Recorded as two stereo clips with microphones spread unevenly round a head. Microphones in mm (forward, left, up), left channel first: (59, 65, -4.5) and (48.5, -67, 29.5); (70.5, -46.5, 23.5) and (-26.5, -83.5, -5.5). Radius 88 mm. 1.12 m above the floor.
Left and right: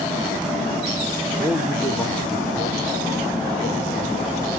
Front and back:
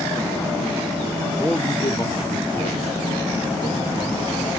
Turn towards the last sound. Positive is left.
turn(degrees=45)